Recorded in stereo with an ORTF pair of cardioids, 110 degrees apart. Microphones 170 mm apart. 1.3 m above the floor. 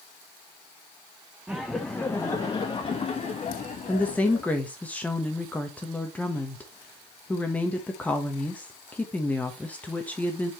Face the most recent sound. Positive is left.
turn(degrees=10)